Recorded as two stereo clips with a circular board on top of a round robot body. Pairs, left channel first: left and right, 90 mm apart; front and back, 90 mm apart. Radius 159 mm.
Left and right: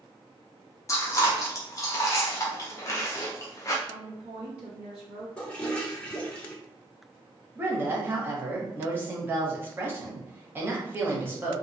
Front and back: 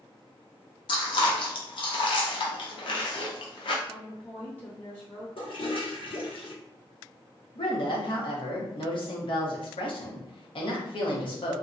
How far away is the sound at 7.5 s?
About 0.9 m.